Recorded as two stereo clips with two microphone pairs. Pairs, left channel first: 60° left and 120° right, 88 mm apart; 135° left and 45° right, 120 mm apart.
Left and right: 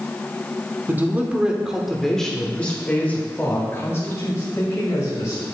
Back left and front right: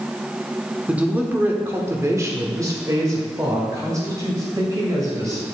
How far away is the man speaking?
About 1.0 m.